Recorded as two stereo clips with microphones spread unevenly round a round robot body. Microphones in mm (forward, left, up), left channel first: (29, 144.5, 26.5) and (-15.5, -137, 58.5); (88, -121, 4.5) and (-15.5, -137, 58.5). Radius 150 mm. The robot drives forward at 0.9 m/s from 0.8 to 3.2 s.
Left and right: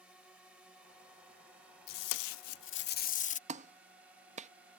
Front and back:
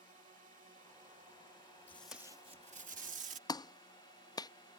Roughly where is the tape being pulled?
Left.